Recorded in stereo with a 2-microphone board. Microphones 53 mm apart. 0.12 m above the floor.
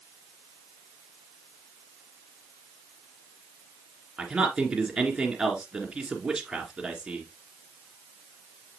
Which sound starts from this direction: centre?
A man speaking, at 4.2 s.